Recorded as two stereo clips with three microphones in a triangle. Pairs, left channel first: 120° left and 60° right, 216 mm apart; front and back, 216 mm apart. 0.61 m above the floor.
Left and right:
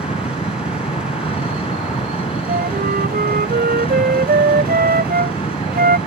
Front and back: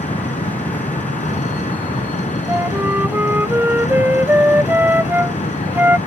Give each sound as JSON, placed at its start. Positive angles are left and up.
{"t": 0.0, "sound": "an engine running", "azimuth_deg": 55}
{"t": 2.5, "sound": "a flute", "azimuth_deg": -100}